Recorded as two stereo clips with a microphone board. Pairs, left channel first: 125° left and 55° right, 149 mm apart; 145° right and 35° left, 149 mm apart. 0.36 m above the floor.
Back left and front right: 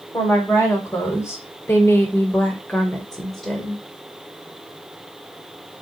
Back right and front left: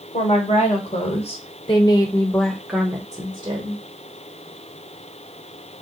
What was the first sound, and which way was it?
A woman speaking, 165° right.